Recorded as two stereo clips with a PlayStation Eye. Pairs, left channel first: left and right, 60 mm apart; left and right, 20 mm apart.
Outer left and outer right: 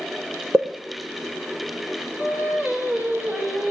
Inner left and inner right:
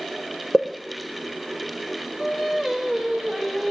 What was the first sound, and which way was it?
A pop, 40° right (ahead or behind).